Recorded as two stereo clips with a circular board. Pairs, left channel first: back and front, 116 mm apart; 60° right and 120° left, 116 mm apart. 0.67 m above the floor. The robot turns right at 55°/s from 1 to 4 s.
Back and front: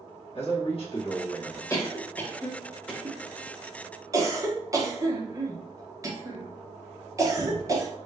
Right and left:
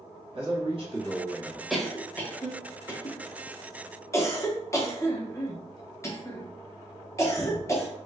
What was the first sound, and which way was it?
A man speaking, 155° left.